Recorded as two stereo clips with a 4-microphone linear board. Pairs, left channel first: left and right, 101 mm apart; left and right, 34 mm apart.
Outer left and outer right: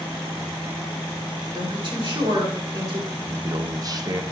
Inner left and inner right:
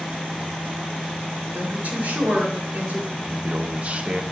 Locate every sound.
1.5 s a woman speaking: 60° right (ahead or behind), 3 m
3.2 s a man speaking: 40° right (ahead or behind), 0.6 m